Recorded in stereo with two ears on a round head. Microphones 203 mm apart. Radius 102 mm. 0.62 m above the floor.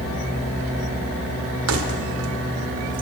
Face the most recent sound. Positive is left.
turn(degrees=-55)  # may be behind; listen again after turning